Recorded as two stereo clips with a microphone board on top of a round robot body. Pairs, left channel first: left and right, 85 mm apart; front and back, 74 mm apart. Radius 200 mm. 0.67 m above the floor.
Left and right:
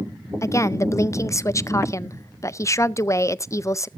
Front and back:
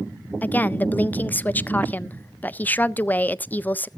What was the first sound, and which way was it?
A woman speaking, 55° left.